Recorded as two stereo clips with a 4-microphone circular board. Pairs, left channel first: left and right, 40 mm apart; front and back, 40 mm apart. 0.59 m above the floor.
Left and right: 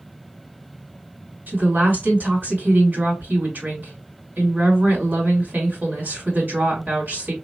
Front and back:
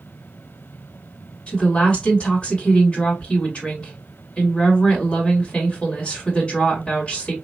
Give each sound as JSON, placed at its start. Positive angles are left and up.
{"t": 1.5, "sound": "a woman speaking", "azimuth_deg": -60, "distance_m": 2.5}